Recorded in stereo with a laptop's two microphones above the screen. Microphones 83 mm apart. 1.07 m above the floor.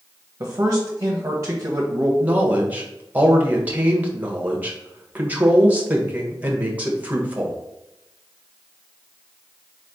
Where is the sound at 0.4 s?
40° right (ahead or behind), 0.8 m.